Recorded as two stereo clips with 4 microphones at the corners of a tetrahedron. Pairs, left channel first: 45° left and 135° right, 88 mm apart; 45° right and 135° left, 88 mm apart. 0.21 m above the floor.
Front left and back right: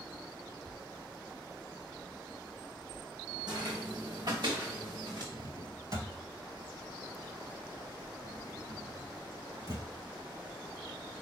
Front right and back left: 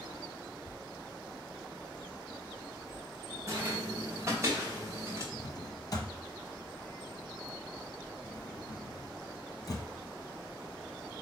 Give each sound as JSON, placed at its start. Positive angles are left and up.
{"t": 3.5, "sound": "footsteps", "azimuth_deg": -170, "distance_m": 1.0}
{"t": 5.3, "sound": "a drawer", "azimuth_deg": -90, "distance_m": 1.1}